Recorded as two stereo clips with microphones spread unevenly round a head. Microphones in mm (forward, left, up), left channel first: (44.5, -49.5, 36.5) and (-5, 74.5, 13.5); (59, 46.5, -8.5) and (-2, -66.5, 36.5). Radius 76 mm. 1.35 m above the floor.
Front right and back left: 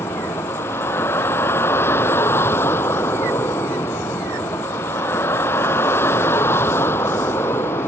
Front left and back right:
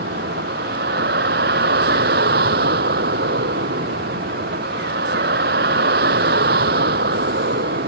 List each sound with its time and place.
0.0 s a vehicle: 145° right